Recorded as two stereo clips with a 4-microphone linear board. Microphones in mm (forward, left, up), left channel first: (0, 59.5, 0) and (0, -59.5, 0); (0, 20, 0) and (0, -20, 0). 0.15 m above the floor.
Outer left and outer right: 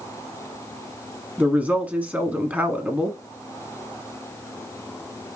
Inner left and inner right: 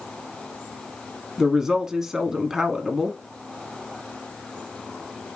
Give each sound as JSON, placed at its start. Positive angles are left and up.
{"t": 1.4, "sound": "a woman speaking", "side_deg": -15, "distance_m": 1.0}